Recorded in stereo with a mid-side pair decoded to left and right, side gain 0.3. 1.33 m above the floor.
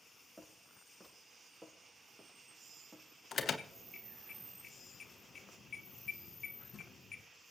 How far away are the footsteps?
About 8 m.